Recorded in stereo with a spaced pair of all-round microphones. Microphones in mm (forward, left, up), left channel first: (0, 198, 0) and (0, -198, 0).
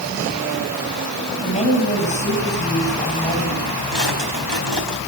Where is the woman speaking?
20° left (ahead or behind), 7.5 m.